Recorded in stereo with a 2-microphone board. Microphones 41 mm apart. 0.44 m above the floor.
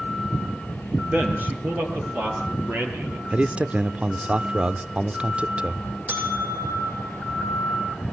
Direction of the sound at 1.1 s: 50° right (ahead or behind).